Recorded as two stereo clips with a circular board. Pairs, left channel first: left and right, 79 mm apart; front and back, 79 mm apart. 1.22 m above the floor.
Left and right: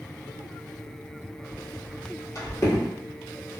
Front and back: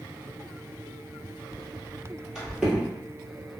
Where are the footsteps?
75° left, 1.9 m; by 2.9 s 120° left, 1.4 m.